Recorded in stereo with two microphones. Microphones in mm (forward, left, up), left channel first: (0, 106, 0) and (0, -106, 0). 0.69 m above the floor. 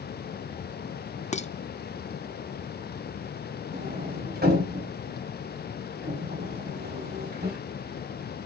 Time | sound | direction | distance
1.3 | dishes clattering | 35° left (ahead or behind) | 0.6 m
3.7 | a sliding door | 50° right (ahead or behind) | 4.5 m